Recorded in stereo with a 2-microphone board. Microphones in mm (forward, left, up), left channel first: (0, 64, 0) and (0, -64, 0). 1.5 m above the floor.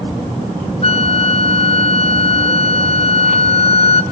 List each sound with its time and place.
0.8 s a flute: 50° left (ahead or behind), 0.5 m